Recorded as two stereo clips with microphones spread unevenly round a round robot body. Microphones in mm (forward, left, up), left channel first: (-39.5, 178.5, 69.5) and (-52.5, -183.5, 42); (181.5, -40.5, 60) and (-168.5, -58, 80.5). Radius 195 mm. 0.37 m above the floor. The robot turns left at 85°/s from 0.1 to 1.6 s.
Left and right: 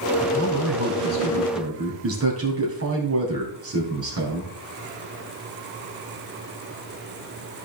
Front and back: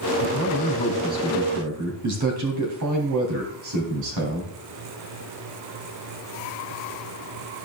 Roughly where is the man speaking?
Ahead.